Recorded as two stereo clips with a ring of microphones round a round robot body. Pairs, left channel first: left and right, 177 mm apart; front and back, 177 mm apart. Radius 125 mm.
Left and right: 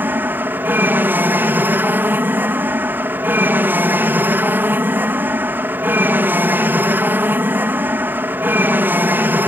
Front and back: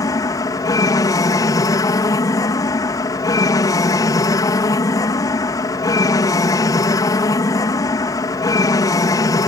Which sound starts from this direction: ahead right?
An aircraft, at 0.0 s.